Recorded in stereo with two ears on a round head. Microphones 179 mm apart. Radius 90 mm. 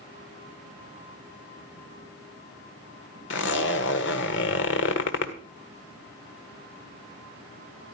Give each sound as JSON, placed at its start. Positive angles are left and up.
{"t": 3.3, "sound": "a zipper", "side_deg": 65, "distance_m": 1.5}